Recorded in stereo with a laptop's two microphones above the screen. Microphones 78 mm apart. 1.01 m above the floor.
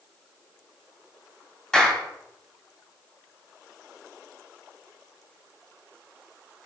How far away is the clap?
About 5.5 m.